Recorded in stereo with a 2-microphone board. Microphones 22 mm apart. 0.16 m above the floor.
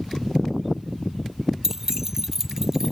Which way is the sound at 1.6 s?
20° right (ahead or behind).